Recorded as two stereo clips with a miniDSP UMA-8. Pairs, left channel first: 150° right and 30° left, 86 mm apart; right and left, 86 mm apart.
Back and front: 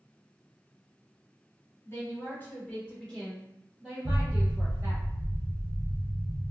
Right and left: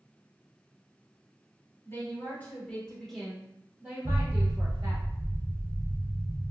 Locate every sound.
1.9 s a woman speaking: 120° right, 1.4 m; by 5.0 s 75° left, 1.5 m
4.0 s an explosion: 15° left, 0.6 m